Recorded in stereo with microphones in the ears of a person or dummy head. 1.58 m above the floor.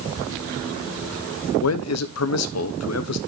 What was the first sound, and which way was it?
A man speaking, 80° left.